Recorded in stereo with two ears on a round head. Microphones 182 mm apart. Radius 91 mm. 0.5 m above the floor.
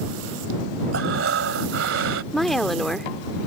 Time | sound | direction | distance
0.9 | breathing | 65° right (ahead or behind) | ?
2.3 | a woman speaking | centre (ahead or behind) | ?